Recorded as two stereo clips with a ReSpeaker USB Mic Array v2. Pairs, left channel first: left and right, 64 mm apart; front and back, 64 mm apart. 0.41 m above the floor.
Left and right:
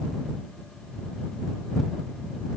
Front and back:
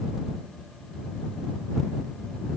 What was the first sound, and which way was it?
Only background noise.